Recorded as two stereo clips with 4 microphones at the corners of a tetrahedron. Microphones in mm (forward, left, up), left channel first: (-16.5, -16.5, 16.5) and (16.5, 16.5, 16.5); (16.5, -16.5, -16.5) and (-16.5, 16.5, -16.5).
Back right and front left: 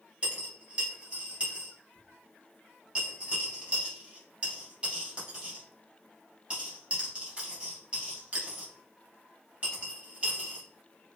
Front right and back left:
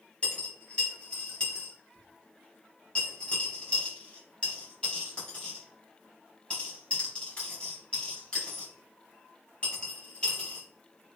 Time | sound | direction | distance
0.2 | a dropped coin | 5° left | 1.1 m